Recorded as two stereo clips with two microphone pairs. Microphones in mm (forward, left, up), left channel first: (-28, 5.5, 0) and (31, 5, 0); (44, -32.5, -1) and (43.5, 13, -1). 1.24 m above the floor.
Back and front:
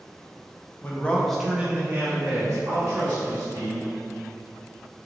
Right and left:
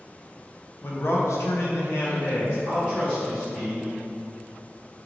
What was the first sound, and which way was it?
A man speaking, 125° right.